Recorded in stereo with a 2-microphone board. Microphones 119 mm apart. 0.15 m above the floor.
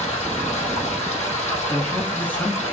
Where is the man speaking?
15° left (ahead or behind), 1.5 m.